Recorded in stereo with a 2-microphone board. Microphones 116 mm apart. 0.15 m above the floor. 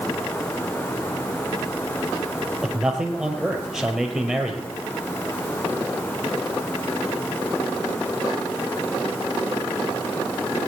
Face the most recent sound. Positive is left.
turn(degrees=-5)  # may be behind; listen again after turning